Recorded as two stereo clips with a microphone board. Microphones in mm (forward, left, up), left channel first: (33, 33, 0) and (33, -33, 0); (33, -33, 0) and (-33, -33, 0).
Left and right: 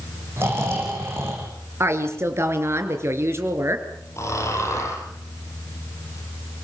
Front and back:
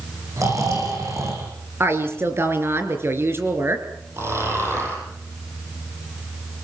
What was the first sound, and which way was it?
Snoring, 140° right.